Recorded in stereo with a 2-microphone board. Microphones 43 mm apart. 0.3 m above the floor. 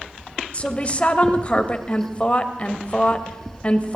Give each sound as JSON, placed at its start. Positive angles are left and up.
{"t": 0.5, "sound": "a woman speaking", "side_deg": 30, "distance_m": 1.0}